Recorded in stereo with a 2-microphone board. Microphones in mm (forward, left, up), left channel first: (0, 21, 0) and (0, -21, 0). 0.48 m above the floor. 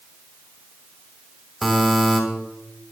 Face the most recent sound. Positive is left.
turn(degrees=0)  # may be behind; listen again after turning